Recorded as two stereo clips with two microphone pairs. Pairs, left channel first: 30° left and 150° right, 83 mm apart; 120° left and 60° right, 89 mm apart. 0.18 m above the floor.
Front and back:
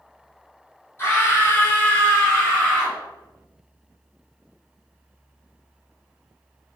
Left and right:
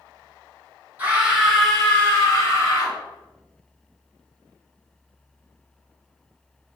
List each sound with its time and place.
1.0 s a scream: 5° right, 1.3 m; by 3.0 s 115° left, 1.6 m